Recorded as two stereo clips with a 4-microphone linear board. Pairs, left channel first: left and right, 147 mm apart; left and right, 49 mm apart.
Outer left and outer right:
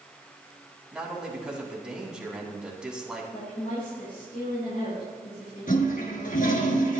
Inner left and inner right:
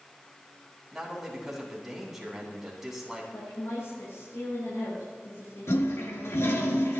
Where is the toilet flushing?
70° left (ahead or behind), 2.5 m.